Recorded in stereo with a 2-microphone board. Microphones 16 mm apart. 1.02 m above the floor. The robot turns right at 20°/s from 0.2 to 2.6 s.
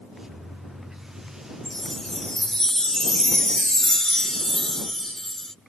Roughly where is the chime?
Left.